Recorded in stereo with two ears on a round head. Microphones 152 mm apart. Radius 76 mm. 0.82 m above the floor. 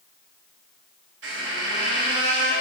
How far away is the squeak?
About 1.0 m.